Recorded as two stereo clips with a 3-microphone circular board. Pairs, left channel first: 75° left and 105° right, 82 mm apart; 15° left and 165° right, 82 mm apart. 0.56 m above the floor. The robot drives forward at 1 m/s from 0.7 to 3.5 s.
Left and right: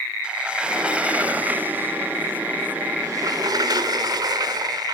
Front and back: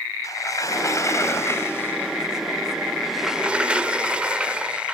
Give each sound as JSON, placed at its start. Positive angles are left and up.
{"t": 0.2, "sound": "a sliding door", "azimuth_deg": -30, "distance_m": 3.5}